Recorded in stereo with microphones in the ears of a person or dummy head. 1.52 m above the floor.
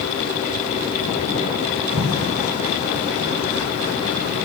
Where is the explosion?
35° right (ahead or behind), 8 m.